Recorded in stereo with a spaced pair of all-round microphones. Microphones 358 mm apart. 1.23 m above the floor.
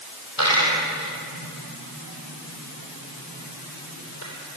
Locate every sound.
0.4 s a dropped coin: 70° left (ahead or behind), 5.5 m